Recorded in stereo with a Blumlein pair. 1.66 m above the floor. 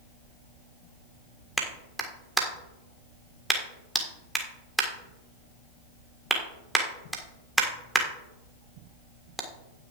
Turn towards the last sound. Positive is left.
turn(degrees=-5)